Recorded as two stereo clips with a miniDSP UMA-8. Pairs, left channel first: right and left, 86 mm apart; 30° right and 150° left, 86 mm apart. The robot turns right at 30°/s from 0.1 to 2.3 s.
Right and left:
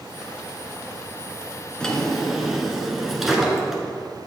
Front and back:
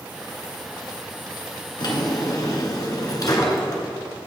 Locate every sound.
1.8 s a drawer: 10° right, 1.3 m; by 3.8 s 5° left, 1.3 m